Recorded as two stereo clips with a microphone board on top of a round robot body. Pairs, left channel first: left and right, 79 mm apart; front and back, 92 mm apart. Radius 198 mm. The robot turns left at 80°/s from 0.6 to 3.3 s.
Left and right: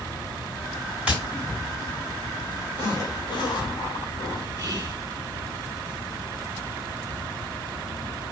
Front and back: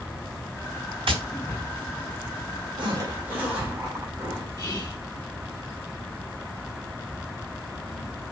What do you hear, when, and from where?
1.1 s tapping: 165° right, 2 m; by 1.2 s 170° right, 2 m
2.8 s a zipper: 155° left, 2.5 m; by 4.5 s 110° left, 2.5 m
4.6 s whispering: 35° right, 1.9 m